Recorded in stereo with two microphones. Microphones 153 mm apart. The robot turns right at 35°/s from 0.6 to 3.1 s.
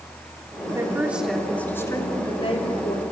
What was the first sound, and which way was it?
A woman speaking, 20° right.